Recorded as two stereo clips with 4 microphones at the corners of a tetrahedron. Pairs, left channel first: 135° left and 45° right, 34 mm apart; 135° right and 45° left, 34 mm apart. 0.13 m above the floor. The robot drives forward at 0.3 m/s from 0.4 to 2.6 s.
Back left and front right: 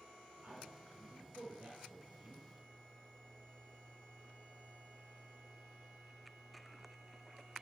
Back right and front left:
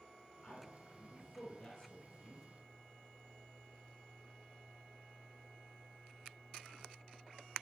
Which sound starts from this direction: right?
A man speaking, at 0.4 s.